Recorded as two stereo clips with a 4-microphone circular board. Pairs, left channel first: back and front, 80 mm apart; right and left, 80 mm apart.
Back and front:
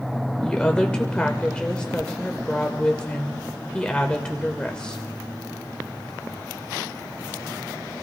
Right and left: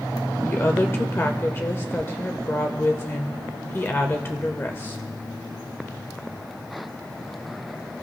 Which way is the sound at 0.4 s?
115° right.